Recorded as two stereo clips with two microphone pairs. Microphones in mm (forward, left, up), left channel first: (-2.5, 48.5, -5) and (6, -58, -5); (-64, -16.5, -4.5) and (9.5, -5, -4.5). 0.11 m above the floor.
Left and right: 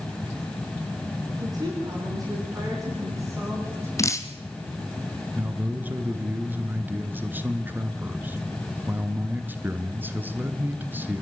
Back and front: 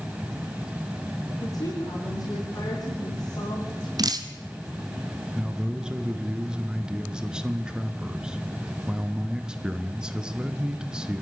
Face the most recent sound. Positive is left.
turn(degrees=-60)